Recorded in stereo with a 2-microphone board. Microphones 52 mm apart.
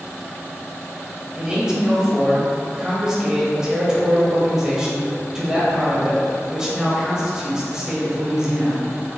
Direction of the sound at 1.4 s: 10° right (ahead or behind).